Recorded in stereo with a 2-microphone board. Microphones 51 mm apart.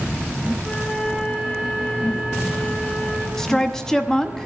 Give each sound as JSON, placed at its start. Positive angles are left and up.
{"t": 0.6, "sound": "a flute", "side_deg": 15, "distance_m": 2.5}
{"t": 3.4, "sound": "a woman speaking", "side_deg": 10, "distance_m": 0.9}